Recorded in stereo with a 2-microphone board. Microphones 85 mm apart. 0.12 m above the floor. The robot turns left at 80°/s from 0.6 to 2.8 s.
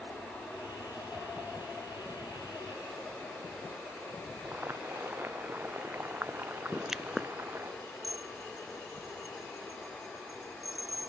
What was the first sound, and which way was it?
Boiling, 25° right (ahead or behind).